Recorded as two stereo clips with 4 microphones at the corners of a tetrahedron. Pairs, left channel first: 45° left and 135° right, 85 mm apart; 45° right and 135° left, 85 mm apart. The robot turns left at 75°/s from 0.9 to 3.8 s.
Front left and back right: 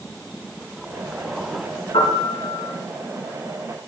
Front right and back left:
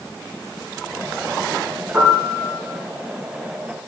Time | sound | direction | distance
1.9 | a piano | 65° left | 5.5 m